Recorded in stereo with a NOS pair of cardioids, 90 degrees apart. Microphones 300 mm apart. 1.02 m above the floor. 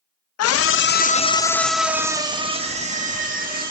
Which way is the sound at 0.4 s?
60° left.